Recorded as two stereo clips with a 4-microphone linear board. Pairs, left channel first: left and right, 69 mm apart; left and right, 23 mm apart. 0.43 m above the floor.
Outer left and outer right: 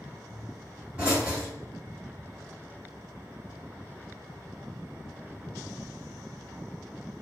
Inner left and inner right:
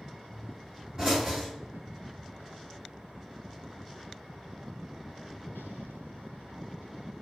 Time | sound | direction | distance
0.3 | a pop | 15° right (ahead or behind) | 1.8 m